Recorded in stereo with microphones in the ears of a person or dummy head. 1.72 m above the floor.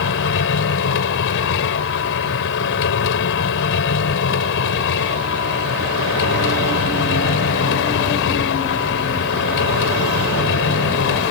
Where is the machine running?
70° left (ahead or behind).